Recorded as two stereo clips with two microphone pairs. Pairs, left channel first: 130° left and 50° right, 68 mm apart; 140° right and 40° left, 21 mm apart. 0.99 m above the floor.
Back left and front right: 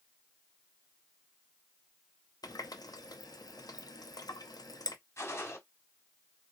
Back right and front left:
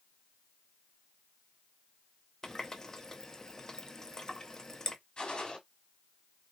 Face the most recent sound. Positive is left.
turn(degrees=170)